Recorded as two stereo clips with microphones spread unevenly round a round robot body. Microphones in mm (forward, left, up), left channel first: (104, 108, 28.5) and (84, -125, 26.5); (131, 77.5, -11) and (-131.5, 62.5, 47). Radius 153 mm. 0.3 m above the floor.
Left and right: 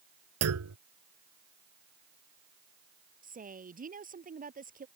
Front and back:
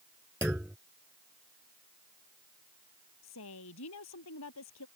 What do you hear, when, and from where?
0.4 s a clunk: 90° right
3.2 s a woman speaking: 40° right